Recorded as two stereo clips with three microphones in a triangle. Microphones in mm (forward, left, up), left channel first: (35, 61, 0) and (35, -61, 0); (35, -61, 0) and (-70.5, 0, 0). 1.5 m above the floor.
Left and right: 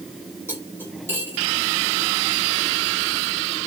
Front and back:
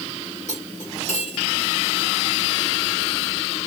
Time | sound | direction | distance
0.5 | cutlery clinking | 20° right | 3.5 m